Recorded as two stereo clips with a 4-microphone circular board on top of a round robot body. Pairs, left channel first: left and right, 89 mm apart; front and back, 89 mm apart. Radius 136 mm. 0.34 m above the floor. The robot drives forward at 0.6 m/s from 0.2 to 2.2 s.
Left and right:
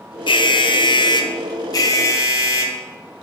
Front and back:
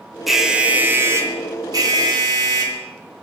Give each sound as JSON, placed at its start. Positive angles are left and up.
{"t": 0.3, "sound": "an alarm", "azimuth_deg": 90, "distance_m": 1.0}